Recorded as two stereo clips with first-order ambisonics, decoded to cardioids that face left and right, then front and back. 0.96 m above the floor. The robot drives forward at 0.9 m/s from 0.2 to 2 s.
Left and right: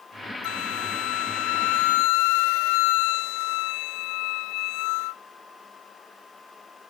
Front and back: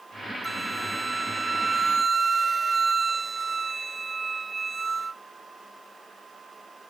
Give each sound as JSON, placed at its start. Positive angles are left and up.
{"t": 0.4, "sound": "a flute", "azimuth_deg": 100}